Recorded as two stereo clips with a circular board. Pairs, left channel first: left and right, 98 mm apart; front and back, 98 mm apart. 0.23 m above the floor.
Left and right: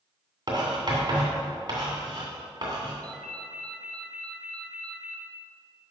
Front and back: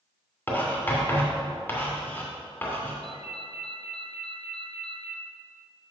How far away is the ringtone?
About 1.4 m.